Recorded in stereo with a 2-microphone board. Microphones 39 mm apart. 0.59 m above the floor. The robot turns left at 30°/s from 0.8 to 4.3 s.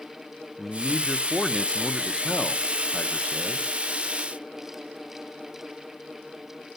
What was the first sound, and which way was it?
A man speaking, 5° left (ahead or behind).